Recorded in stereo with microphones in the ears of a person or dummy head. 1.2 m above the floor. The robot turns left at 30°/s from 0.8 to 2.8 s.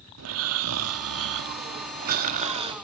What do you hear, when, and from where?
0.2 s snoring: 90° right, 1.4 m; by 2.8 s 150° right, 1.4 m